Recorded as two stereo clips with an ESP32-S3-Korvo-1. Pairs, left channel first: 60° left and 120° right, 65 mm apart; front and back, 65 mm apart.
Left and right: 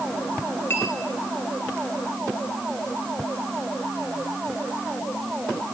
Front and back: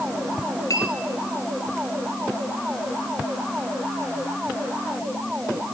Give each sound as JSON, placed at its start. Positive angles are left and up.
{"t": 0.7, "sound": "a clink", "azimuth_deg": 15, "distance_m": 1.8}